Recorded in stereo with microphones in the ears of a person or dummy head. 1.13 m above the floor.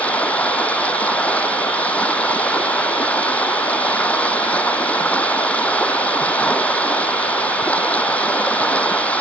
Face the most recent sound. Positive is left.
turn(degrees=10)  # may be behind; listen again after turning